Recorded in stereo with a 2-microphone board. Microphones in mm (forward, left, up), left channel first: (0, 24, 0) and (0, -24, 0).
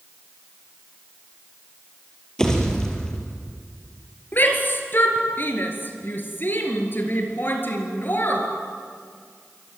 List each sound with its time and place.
2.4 s a pop: 15° left (ahead or behind), 4.5 m
4.3 s a shout: 45° left (ahead or behind), 3.5 m